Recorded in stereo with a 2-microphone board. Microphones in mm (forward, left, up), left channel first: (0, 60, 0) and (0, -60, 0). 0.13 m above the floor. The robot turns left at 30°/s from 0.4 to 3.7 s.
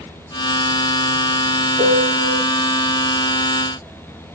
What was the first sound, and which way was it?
A piano, 40° right (ahead or behind).